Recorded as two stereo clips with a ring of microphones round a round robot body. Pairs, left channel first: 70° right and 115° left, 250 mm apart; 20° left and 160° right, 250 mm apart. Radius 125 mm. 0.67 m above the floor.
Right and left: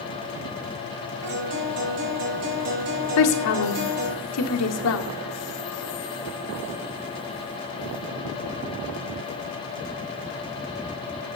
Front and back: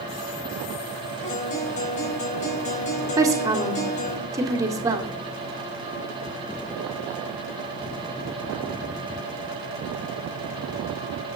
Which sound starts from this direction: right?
A woman speaking, at 3.2 s.